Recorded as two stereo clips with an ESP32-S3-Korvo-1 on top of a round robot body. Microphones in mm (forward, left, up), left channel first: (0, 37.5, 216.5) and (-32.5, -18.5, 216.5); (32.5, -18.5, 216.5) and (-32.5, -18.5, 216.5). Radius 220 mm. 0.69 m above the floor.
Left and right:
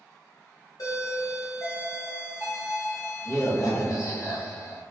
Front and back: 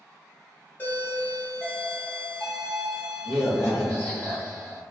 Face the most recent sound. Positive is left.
turn(degrees=55)